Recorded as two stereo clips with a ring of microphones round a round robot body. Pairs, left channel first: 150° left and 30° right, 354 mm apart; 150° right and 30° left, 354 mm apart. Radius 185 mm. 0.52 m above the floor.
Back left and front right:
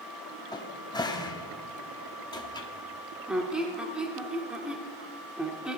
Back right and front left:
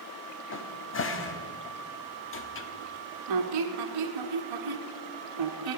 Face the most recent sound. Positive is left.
turn(degrees=55)